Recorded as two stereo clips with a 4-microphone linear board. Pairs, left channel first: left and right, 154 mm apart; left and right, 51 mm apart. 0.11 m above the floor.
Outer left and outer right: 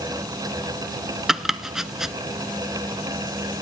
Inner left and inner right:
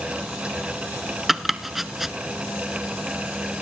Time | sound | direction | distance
1.3 | chopping | 5° right (ahead or behind) | 0.7 m